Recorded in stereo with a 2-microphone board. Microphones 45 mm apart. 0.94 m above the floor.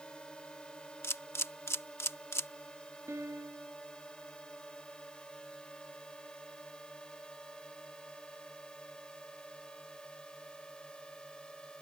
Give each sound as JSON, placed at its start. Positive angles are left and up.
{"t": 0.0, "sound": "a drone", "side_deg": 20}
{"t": 1.0, "sound": "a camera shutter", "side_deg": 80}
{"t": 3.1, "sound": "a piano", "side_deg": -85}